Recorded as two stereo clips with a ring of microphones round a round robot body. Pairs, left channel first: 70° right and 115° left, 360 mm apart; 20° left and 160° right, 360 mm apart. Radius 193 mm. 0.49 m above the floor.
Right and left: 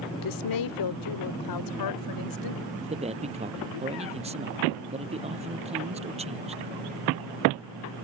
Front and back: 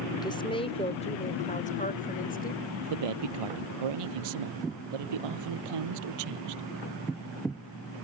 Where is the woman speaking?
55° right; by 2.6 s 45° right.